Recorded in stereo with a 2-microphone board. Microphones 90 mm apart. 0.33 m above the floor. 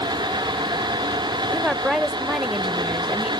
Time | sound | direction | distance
1.5 | a woman speaking | 5° right (ahead or behind) | 0.9 m